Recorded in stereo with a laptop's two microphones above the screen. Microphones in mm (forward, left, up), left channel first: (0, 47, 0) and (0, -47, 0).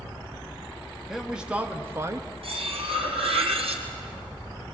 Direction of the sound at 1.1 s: 5° right (ahead or behind).